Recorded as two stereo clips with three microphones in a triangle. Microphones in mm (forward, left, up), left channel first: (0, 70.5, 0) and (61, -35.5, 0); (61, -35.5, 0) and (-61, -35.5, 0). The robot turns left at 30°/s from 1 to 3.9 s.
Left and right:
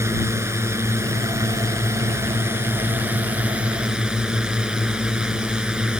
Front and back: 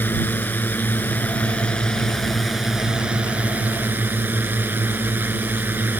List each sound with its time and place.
0.0 s a drone: 45° right; by 6.0 s 135° right